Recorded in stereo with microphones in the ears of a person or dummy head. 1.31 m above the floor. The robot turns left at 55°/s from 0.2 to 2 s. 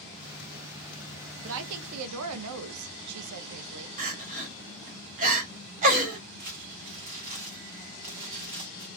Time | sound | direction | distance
1.4 | a woman speaking | 60° right | 0.7 m
4.0 | crying | 40° right (ahead or behind) | 0.8 m
6.4 | crumpling | 25° right (ahead or behind) | 0.8 m